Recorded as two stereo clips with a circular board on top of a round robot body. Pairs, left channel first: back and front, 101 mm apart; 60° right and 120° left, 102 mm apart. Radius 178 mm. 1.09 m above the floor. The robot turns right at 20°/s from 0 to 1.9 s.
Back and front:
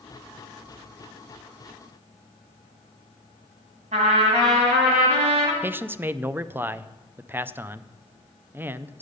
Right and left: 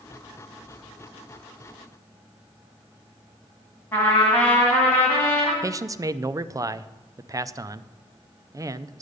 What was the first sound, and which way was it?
A trumpet, 15° left.